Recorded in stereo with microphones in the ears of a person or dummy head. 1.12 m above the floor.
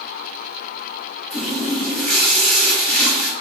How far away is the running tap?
About 1.0 m.